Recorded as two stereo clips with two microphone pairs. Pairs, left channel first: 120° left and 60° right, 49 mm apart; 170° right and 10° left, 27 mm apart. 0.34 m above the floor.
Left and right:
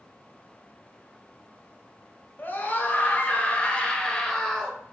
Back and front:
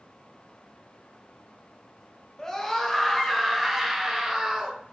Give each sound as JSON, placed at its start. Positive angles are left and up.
{"t": 2.4, "sound": "a scream", "azimuth_deg": 125, "distance_m": 1.6}